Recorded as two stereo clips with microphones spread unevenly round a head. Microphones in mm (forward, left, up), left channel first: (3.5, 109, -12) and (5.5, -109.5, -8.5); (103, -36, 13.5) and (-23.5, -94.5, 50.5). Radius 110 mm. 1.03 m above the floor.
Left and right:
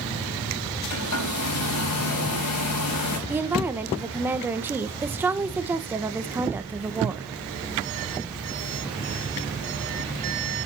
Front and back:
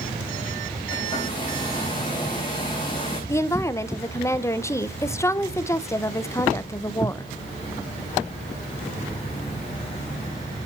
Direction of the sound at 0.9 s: 95° left.